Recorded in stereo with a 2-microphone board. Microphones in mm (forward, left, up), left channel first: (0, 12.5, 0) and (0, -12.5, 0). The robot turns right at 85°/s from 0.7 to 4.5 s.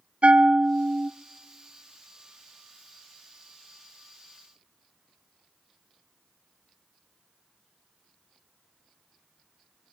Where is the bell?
110° right, 0.7 m; by 1.1 s 75° right, 0.7 m.